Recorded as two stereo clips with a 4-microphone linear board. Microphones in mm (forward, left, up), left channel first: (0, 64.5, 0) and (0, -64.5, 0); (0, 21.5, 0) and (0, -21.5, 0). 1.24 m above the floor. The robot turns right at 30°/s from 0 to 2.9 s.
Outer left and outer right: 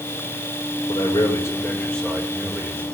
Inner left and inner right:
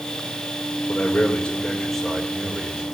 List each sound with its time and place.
0.9 s a man speaking: 140° left, 5 m; by 2.8 s 160° right, 5 m